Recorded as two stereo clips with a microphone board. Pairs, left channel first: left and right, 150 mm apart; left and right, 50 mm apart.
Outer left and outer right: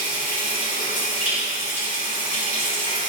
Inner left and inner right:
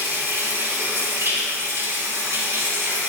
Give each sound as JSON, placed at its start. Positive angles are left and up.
{"t": 0.0, "sound": "running water", "side_deg": -70, "distance_m": 5.5}